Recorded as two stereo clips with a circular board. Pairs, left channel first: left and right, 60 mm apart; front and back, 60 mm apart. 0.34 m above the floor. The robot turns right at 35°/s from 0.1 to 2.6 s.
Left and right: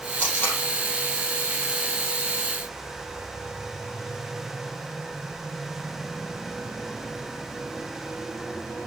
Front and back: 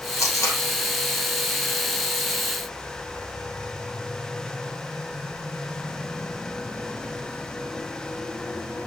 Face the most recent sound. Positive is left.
turn(degrees=110)